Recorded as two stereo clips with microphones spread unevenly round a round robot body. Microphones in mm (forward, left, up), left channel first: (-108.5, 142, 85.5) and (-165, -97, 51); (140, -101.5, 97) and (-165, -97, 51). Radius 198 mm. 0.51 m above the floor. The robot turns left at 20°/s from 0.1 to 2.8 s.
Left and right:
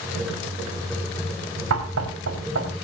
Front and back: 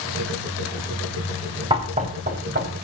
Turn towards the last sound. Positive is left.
turn(degrees=-130)